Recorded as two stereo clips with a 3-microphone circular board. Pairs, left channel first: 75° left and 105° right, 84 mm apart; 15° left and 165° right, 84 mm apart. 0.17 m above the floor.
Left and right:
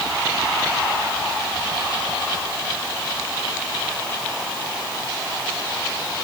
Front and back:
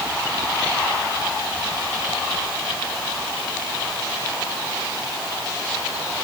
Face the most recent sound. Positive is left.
No sound to turn to.